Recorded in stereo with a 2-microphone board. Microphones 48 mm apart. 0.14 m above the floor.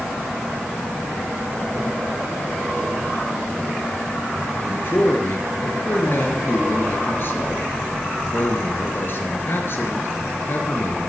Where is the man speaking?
50° left (ahead or behind), 2.5 m.